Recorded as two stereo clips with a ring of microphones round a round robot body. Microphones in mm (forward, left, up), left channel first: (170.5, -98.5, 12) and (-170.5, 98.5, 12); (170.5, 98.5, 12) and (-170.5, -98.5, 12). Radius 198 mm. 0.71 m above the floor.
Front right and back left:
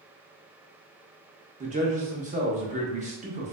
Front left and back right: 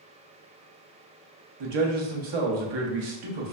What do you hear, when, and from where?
1.6 s a man speaking: 140° right, 0.8 m